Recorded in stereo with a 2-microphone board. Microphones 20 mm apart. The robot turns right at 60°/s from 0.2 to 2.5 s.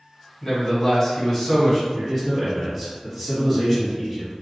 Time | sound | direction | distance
0.4 | a man speaking | 80° left | 1.6 m
1.9 | a man speaking | 20° left (ahead or behind) | 1.2 m